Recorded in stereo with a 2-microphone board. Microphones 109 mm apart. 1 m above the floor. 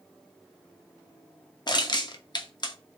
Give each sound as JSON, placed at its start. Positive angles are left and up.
{"t": 1.7, "sound": "crushing", "side_deg": 40, "distance_m": 0.6}